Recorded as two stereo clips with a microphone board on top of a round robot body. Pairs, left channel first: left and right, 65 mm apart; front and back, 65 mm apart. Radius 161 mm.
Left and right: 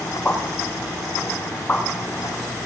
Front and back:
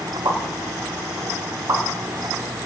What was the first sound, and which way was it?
A pop, 160° left.